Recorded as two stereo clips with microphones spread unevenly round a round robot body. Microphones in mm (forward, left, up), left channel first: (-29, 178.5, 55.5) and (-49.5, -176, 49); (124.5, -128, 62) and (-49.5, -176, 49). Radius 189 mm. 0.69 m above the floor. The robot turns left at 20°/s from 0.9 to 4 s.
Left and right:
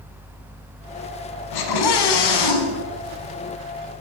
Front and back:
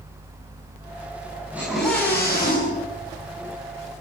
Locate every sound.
1.5 s a scream: 110° left, 6.5 m; by 2.9 s 85° left, 6.5 m